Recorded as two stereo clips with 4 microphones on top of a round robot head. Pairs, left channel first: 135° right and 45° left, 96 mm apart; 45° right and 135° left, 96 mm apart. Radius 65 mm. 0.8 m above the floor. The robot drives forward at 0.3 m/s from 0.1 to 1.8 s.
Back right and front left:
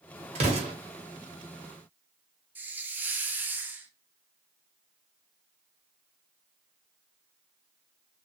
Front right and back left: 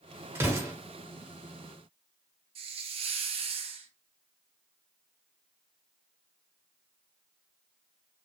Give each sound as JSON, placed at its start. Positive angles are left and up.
{"t": 0.3, "sound": "an explosion", "azimuth_deg": 65, "distance_m": 0.8}
{"t": 2.5, "sound": "a hiss", "azimuth_deg": 115, "distance_m": 0.5}